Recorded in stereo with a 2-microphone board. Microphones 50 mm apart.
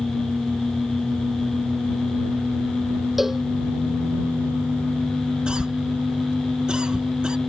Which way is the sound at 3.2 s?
5° right (ahead or behind).